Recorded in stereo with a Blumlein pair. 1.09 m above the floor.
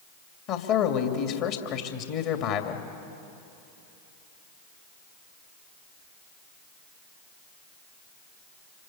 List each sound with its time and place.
0.5 s a man speaking: 40° left, 2.5 m